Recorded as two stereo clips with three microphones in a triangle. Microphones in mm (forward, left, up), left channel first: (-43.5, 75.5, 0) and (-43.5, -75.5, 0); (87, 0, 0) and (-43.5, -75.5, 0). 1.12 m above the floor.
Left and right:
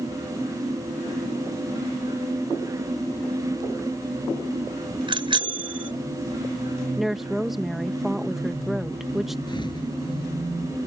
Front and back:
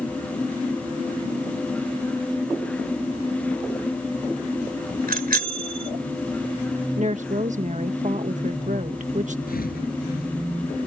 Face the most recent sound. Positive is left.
turn(degrees=30)